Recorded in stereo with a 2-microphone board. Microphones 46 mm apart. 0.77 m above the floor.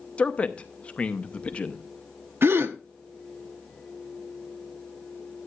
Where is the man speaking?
25° left (ahead or behind), 0.7 m.